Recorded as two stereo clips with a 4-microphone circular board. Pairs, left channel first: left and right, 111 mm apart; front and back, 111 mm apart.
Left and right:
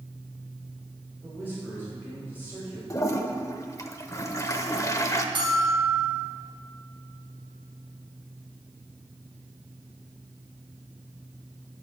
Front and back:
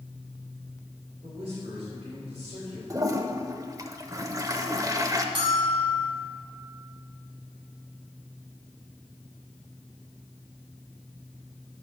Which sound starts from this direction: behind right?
A bell, at 5.3 s.